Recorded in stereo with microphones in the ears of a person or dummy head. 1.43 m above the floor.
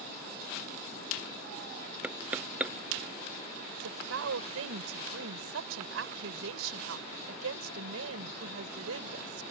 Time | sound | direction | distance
2.0 | knocking | 5° right (ahead or behind) | ?
3.7 | a woman speaking | 85° right | ?